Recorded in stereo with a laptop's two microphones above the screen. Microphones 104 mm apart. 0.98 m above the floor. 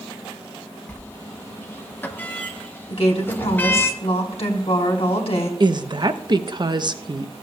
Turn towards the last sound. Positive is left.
turn(degrees=-45)  # may be behind; listen again after turning